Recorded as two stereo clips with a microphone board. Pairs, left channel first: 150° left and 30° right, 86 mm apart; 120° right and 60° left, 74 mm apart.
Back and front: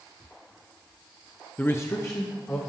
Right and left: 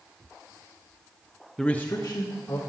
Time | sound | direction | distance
1.6 | a man speaking | 155° left | 0.6 m